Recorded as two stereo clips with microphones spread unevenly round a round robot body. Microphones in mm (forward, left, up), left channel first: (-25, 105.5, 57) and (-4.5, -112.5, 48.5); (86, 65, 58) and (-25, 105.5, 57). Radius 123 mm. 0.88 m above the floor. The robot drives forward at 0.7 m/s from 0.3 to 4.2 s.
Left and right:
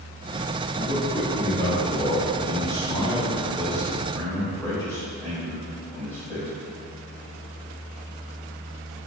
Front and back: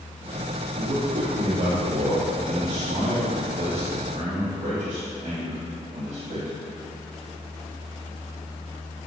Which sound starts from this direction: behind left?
A man speaking, at 0.8 s.